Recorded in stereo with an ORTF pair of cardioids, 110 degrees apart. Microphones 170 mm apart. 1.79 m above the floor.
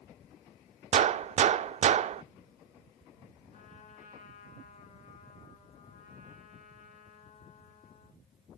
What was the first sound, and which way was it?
A gunshot, 40° right.